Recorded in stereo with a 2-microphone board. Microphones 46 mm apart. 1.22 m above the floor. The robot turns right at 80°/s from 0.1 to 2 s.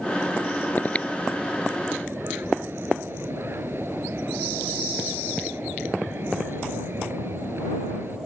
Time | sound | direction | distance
0.8 | breathing | 40° left (ahead or behind) | ?